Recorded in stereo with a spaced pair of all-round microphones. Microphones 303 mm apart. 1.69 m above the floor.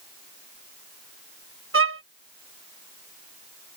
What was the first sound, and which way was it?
A violin, 45° right (ahead or behind).